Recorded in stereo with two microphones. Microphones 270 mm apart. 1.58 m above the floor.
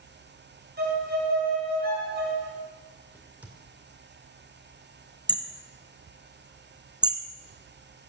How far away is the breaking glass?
No breaking glass in this recording.